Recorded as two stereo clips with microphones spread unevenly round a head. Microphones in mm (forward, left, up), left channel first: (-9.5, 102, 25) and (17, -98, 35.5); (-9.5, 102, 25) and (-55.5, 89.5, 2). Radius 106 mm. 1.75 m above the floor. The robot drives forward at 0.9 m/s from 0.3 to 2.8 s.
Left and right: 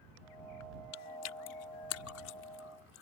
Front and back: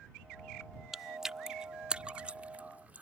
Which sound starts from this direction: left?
Chewing, at 0.9 s.